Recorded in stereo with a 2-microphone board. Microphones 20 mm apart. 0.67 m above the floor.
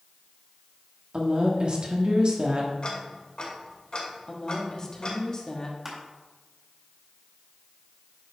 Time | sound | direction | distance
1.1 | a woman speaking | 45° right (ahead or behind) | 1.4 m
2.8 | ticking | 50° left (ahead or behind) | 2 m
4.3 | a woman speaking | 30° left (ahead or behind) | 1.3 m
5.8 | crushing | 15° right (ahead or behind) | 2 m